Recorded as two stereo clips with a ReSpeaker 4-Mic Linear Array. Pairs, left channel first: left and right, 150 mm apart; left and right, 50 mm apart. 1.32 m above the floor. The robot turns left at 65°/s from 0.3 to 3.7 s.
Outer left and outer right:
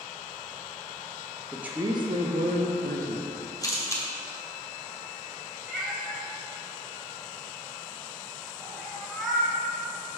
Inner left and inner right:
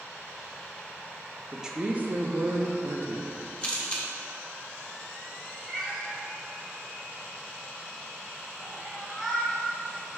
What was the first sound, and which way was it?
A woman speaking, 5° right.